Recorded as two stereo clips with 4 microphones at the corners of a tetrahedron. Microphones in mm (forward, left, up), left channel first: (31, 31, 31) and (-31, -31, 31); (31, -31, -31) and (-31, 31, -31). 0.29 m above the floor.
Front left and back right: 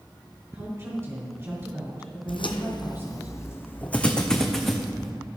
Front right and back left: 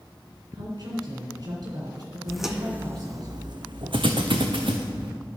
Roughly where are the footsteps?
Ahead left.